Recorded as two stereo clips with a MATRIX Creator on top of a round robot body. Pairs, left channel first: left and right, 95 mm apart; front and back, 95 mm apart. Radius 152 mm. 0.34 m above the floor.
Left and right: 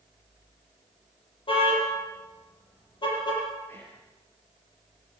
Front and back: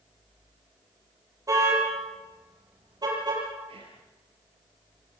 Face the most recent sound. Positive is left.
turn(degrees=160)